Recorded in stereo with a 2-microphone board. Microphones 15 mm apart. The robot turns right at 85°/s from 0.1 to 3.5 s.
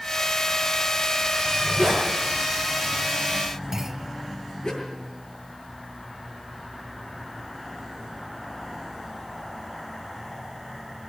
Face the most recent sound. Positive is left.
turn(degrees=-25)  # may be behind; listen again after turning